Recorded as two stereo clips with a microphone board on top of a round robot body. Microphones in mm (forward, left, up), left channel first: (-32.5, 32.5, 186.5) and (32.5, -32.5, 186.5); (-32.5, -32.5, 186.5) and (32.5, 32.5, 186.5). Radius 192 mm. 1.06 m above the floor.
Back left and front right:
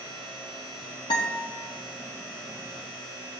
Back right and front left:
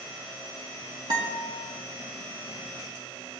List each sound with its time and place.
1.1 s a guitar: 90° left, 1.1 m